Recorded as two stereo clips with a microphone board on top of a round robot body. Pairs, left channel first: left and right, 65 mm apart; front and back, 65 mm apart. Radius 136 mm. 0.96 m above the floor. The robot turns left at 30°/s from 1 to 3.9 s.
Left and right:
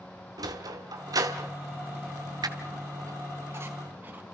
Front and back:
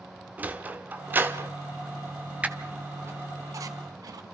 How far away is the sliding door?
About 1.5 m.